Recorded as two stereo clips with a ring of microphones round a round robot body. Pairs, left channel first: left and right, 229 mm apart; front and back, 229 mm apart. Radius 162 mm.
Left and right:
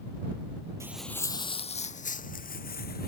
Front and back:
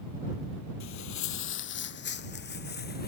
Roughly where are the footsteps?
Ahead.